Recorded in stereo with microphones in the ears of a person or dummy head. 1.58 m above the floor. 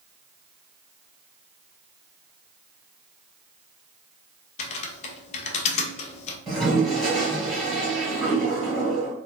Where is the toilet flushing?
Centre (ahead or behind), 1.5 m.